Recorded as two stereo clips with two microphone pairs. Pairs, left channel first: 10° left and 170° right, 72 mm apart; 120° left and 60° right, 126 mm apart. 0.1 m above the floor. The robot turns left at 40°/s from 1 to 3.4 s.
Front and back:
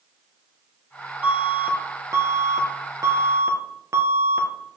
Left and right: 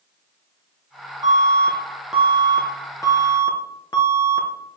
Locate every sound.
1.2 s an alarm: 110° right, 1.3 m; by 4.5 s 165° left, 1.3 m